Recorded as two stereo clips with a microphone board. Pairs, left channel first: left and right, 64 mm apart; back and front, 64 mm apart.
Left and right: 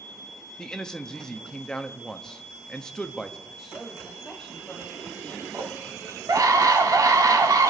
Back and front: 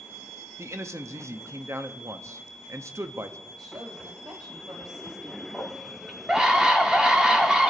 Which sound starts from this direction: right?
A scream, at 5.5 s.